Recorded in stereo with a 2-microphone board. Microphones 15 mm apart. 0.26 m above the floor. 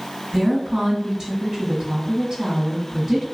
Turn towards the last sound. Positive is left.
turn(degrees=-45)  # may be behind; listen again after turning